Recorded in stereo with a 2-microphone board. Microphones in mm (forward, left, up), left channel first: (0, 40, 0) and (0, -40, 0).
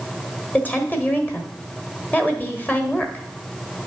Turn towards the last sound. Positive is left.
turn(degrees=20)  # may be behind; listen again after turning